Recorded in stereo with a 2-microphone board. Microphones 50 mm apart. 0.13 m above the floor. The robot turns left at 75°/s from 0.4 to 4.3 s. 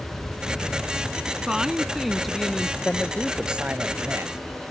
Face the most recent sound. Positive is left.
turn(degrees=-80)